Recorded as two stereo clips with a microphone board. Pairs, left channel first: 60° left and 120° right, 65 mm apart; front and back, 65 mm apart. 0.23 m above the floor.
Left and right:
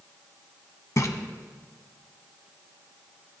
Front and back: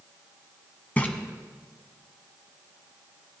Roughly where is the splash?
Ahead left.